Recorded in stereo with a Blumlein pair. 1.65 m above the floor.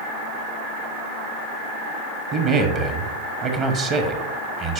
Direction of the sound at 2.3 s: 35° right.